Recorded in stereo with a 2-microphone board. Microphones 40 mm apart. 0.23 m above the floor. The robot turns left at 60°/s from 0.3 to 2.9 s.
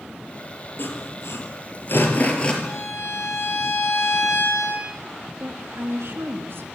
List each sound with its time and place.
0.8 s sawing: 50° left (ahead or behind), 5 m; by 2.5 s 20° left (ahead or behind), 5 m
2.6 s a violin: 80° left, 7 m
5.4 s a woman speaking: 65° right (ahead or behind), 3.5 m